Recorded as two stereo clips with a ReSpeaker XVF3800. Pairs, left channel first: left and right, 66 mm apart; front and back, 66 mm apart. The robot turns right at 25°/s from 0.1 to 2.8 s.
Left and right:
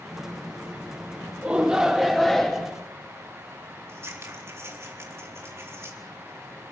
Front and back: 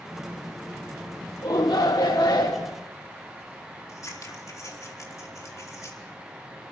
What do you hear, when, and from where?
1.4 s a shout: 20° right, 1.3 m; by 2.7 s 15° left, 1.3 m
3.9 s scissors: 40° right, 4 m